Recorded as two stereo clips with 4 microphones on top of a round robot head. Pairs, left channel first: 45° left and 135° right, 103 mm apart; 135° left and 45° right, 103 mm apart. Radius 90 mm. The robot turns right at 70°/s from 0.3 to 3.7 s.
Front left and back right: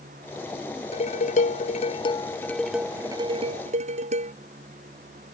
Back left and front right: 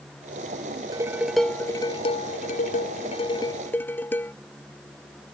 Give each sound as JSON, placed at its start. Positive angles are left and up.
{"t": 0.9, "sound": "dishes clattering", "azimuth_deg": 15}